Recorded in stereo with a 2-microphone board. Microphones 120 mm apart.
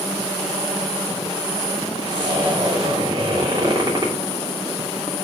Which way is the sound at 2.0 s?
40° right (ahead or behind).